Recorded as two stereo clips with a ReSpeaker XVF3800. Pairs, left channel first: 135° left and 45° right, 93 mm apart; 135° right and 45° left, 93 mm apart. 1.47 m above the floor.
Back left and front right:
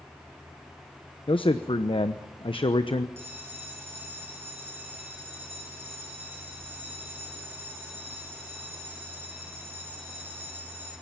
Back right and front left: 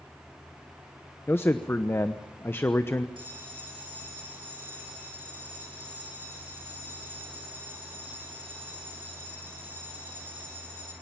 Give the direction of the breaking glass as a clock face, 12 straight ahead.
I don't hear breaking glass.